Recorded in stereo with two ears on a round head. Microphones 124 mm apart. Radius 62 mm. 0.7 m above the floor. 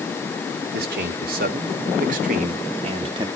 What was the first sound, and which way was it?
A man speaking, 75° right (ahead or behind).